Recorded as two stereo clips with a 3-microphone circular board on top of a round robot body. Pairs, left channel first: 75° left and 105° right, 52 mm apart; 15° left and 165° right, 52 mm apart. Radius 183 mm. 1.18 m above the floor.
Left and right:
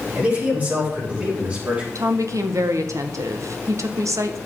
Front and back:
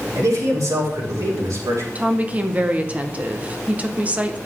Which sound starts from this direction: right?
A woman speaking, at 1.9 s.